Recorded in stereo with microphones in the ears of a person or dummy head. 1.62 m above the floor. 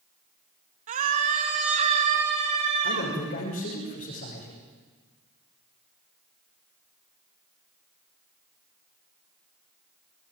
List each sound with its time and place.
0.9 s a scream: 45° right (ahead or behind), 3 m; by 3.1 s 35° right (ahead or behind), 6 m
2.8 s a man speaking: 45° left (ahead or behind), 6 m